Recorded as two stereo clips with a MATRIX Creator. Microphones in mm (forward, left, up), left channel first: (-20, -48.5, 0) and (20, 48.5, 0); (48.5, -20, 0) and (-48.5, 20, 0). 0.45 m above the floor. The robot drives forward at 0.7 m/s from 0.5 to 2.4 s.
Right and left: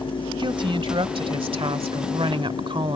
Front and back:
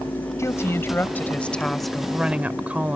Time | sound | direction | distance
0.4 | a woman speaking | 35° left | ?